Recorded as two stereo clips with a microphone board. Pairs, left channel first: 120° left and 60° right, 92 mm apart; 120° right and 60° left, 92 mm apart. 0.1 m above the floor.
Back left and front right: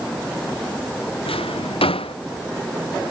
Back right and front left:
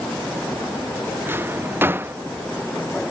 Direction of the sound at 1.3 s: 125° left.